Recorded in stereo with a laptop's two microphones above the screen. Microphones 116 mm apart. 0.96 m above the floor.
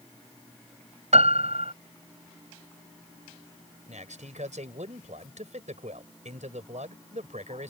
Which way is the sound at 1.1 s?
70° right (ahead or behind).